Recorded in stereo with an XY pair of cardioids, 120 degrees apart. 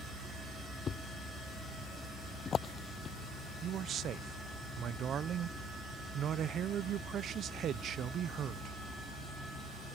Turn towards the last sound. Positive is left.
turn(degrees=-55)